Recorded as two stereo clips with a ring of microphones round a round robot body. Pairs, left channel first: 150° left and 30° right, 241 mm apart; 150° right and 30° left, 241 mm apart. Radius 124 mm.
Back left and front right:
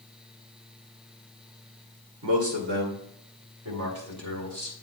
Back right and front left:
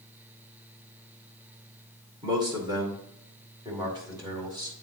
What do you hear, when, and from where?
2.2 s a man speaking: 40° right, 2 m; by 4.7 s 45° right, 3.5 m